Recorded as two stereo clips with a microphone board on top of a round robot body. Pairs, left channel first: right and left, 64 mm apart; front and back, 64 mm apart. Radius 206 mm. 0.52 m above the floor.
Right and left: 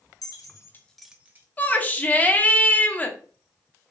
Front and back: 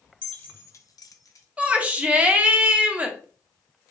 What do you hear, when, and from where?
0.2 s keys jangling: 75° right, 1.3 m; by 1.5 s 35° left, 1.2 m
1.6 s a shout: 130° right, 1.3 m